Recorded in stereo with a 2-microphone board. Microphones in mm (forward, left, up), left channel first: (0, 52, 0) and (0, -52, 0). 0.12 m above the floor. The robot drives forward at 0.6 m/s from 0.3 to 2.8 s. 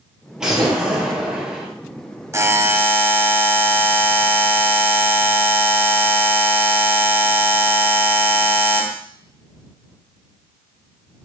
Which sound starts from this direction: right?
A buzzer, at 2.3 s.